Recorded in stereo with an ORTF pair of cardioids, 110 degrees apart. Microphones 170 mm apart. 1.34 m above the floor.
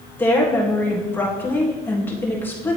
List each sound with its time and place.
0.2 s a woman speaking: 10° left, 1.7 m